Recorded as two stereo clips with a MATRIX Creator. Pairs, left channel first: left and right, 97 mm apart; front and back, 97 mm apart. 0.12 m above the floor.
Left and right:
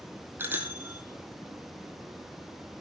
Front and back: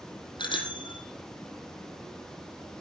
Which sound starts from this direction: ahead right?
A bicycle bell, at 0.4 s.